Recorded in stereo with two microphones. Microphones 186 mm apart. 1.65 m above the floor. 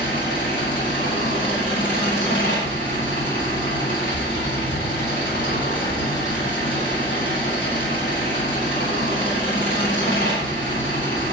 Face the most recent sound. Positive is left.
turn(degrees=80)